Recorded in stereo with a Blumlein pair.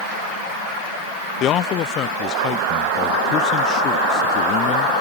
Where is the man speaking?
30° left.